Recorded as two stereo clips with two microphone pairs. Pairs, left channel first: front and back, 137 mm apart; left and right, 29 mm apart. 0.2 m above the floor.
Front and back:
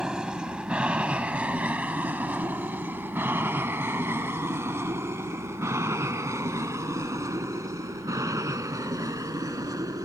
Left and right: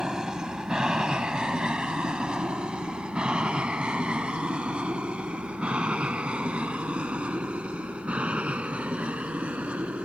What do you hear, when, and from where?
0.0 s an aircraft: 105° right; by 10.1 s 120° right